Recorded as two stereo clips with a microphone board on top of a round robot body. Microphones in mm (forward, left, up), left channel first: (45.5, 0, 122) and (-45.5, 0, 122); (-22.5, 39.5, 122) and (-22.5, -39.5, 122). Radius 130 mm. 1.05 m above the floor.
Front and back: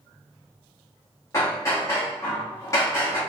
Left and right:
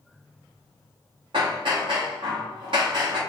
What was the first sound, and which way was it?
Hammering, 60° right.